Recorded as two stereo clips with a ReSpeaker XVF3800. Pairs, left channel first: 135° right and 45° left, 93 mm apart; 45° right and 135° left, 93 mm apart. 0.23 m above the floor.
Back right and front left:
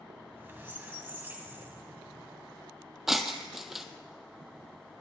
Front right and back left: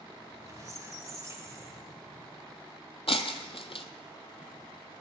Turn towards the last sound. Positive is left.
turn(degrees=-40)